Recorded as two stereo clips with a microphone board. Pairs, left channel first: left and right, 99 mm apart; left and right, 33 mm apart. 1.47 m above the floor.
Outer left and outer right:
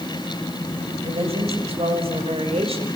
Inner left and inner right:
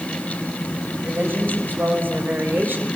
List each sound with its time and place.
1.0 s a woman speaking: 90° right, 8 m